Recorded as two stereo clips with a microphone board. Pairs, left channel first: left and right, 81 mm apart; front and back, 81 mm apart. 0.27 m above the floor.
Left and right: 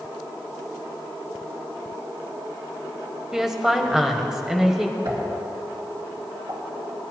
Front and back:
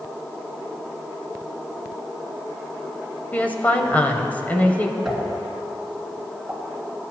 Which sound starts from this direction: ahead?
A woman speaking, at 3.3 s.